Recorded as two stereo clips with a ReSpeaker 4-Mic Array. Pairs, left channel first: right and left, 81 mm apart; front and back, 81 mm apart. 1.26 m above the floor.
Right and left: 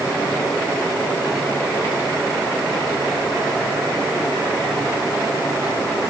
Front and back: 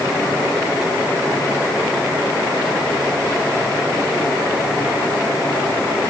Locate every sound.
Only background noise.